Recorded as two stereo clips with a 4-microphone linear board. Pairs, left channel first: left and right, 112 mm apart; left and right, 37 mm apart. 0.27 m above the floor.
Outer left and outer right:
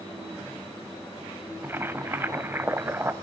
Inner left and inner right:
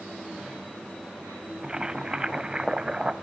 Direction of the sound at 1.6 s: 20° right (ahead or behind).